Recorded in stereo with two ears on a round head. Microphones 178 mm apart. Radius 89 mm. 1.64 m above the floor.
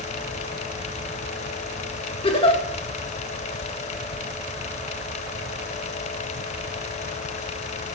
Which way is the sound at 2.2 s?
30° left (ahead or behind).